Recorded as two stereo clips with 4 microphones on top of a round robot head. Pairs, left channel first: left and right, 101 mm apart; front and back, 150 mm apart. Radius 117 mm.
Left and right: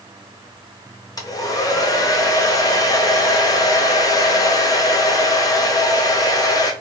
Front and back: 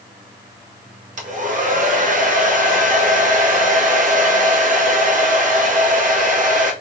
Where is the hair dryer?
145° left, 1.3 m.